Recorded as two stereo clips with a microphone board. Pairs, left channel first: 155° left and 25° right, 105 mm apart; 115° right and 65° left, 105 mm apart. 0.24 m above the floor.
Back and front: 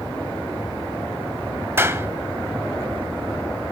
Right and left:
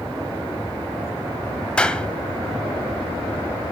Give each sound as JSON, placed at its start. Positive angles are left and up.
{"t": 1.8, "sound": "a clap", "azimuth_deg": -45, "distance_m": 1.0}